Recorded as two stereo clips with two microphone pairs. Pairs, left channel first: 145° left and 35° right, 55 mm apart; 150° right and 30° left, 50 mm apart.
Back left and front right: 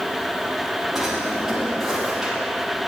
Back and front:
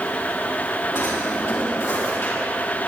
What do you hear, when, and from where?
0.9 s a drawer: 120° right, 5 m